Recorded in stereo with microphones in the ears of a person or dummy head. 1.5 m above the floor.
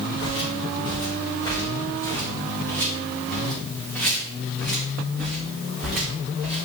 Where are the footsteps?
35° left (ahead or behind), 3 m; by 6.7 s centre (ahead or behind), 5.5 m.